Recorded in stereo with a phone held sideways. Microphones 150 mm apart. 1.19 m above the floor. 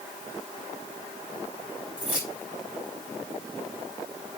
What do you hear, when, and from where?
2.0 s keys jangling: 10° right (ahead or behind), 5.5 m